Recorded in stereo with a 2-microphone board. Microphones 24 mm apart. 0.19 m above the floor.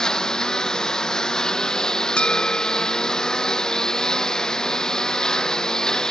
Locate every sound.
0.0 s a lawn mower: 25° left (ahead or behind)
2.2 s a bell: 55° left (ahead or behind)